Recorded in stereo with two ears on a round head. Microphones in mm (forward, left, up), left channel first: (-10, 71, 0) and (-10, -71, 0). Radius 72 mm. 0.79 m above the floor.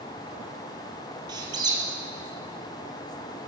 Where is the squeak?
30° right (ahead or behind), 1.8 m.